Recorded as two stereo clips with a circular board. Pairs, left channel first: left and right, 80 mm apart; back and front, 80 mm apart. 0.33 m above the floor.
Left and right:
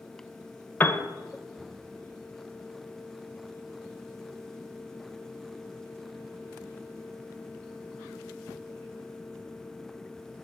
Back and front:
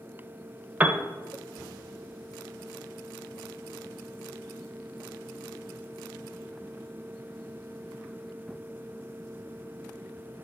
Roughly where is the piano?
Ahead left.